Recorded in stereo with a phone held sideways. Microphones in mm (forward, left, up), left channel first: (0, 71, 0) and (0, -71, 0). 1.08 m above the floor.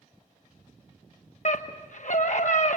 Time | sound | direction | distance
1.4 | a scream | 60° left (ahead or behind) | 1.0 m